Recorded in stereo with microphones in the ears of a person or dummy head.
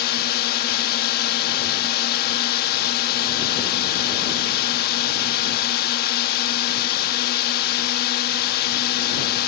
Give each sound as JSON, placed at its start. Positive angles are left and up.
{"t": 0.0, "sound": "a drone", "side_deg": 55}